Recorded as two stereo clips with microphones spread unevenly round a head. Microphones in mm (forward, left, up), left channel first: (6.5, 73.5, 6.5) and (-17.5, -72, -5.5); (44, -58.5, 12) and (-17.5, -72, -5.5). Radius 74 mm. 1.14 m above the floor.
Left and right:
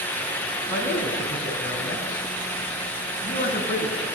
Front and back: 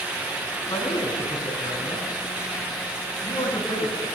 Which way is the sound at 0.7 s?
20° left.